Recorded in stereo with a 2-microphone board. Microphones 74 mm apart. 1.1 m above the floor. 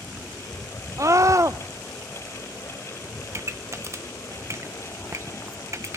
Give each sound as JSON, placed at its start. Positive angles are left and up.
{"t": 1.0, "sound": "a scream", "side_deg": -45, "distance_m": 0.6}
{"t": 3.3, "sound": "a pop", "side_deg": -40, "distance_m": 0.8}